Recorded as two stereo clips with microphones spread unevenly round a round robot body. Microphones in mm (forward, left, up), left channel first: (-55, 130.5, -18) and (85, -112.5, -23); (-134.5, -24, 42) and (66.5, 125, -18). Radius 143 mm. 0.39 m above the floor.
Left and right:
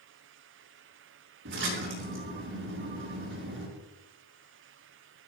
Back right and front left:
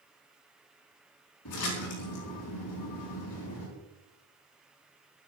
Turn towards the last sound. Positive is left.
turn(degrees=-110)